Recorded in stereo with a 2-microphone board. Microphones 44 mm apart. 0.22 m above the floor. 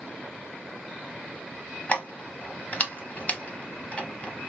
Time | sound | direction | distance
1.9 | keys jangling | 30° left (ahead or behind) | 0.7 m